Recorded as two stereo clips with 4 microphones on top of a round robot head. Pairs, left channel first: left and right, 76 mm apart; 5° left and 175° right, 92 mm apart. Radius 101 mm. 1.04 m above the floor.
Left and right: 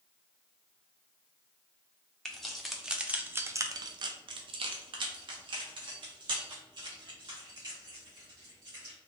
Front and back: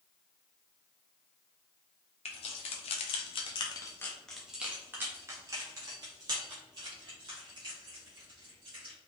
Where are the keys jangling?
5° left, 1.0 m; by 8.9 s 135° right, 3 m.